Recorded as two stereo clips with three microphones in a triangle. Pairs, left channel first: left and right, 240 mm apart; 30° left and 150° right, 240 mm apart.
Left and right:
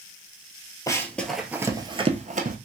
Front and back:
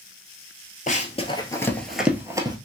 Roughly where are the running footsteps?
Ahead left.